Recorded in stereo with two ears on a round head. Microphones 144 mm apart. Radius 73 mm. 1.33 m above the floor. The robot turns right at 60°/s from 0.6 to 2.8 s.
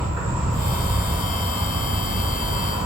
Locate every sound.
0.0 s an insect: 40° right, 1.4 m; by 2.9 s 95° left, 1.4 m